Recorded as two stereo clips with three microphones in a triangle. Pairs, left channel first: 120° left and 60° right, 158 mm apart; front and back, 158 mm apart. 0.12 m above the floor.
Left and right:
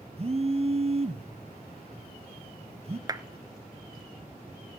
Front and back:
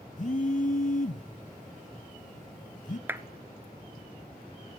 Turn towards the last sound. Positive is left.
turn(degrees=-110)